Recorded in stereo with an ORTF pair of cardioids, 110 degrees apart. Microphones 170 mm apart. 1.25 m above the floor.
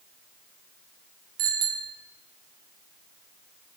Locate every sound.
1.4 s a bicycle bell: 65° right, 6.5 m